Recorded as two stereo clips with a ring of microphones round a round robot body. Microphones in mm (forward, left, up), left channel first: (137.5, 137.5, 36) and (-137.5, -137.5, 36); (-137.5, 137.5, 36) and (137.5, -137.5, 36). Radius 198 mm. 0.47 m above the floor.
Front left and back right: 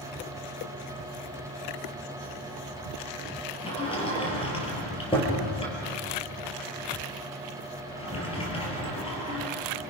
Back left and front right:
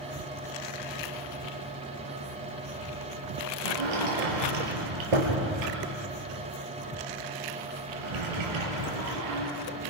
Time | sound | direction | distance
3.6 | a sliding door | 30° right | 5 m